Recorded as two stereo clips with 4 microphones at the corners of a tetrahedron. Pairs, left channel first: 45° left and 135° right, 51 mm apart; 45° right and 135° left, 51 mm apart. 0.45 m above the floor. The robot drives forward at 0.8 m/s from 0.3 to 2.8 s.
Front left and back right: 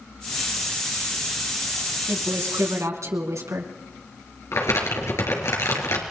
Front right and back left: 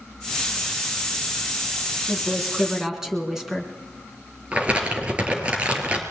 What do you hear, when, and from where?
2.1 s a woman speaking: 140° right, 4 m; by 3.7 s 145° right, 4.5 m
4.5 s crumpling: 70° left, 4.5 m